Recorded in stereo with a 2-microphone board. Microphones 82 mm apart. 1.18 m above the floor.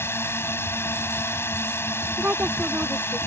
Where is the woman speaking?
20° right (ahead or behind).